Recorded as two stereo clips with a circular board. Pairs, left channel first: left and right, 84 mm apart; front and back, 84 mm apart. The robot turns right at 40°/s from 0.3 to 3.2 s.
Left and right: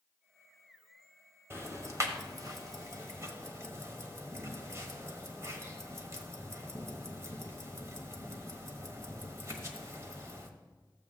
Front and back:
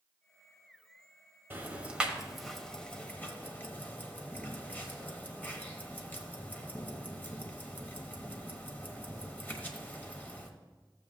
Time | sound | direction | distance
1.5 | ticking | 130° right | 1.2 m